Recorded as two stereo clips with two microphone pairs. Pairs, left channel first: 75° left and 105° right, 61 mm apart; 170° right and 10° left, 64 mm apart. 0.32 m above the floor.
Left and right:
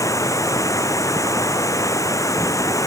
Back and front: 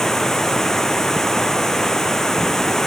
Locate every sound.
0.0 s running water: 105° left